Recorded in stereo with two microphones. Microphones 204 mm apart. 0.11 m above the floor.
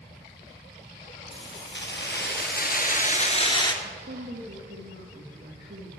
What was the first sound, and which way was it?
Keys jangling, 65° left (ahead or behind).